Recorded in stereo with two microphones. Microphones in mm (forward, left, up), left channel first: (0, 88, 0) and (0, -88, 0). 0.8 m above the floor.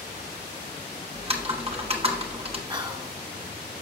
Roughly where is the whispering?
Right.